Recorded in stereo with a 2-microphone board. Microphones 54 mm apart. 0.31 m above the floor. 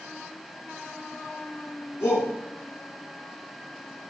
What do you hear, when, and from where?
2.0 s a shout: 50° left (ahead or behind), 3.5 m